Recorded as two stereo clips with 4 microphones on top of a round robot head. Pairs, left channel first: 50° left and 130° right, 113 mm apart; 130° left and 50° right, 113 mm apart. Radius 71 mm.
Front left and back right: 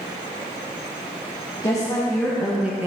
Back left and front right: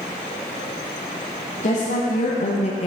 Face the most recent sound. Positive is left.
turn(degrees=160)